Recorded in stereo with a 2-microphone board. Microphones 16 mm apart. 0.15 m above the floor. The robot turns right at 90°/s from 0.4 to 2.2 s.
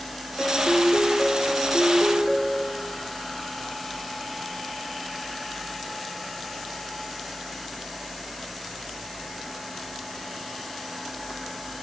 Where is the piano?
40° left, 4.5 m; by 2.9 s 155° right, 4.5 m.